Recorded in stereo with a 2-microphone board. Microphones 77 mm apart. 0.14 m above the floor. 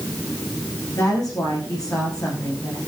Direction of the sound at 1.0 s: 55° left (ahead or behind).